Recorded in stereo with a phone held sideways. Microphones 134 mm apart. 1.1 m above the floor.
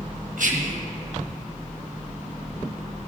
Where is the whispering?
70° right (ahead or behind), 1.2 m.